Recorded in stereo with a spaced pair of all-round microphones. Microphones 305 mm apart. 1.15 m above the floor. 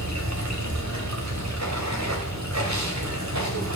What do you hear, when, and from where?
0.0 s running water: 60° right (ahead or behind), 2 m